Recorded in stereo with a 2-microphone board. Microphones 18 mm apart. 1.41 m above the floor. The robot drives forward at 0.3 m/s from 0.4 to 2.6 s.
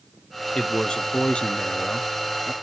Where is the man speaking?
70° left (ahead or behind), 0.9 m; by 2.5 s 65° left (ahead or behind), 0.9 m.